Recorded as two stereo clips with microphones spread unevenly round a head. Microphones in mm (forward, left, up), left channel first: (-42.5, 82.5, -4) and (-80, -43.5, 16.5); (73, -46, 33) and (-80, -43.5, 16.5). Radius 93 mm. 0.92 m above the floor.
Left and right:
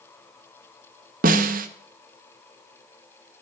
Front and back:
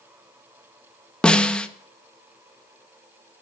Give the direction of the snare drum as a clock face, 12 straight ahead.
3 o'clock.